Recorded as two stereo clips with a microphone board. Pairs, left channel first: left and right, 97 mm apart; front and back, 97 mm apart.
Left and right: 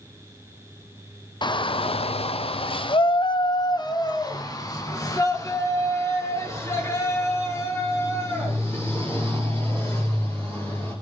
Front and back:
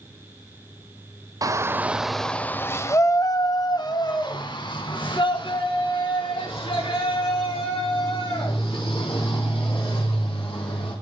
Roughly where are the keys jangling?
I don't hear keys jangling.